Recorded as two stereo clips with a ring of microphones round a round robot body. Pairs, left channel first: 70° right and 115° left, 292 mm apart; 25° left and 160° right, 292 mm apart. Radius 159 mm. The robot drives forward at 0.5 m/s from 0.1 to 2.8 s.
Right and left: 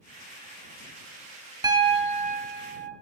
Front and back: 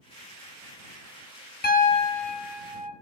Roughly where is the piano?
Ahead left.